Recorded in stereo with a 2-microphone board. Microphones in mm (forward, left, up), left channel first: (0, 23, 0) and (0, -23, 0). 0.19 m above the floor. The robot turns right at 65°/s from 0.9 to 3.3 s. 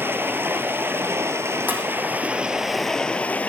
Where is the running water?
120° right, 1.3 m; by 3.5 s 35° left, 1.3 m.